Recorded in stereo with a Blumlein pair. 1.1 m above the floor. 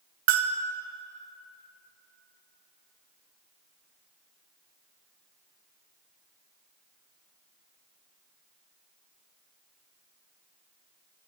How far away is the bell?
About 0.6 m.